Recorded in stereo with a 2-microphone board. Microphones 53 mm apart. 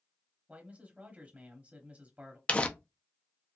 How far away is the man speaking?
About 1.0 m.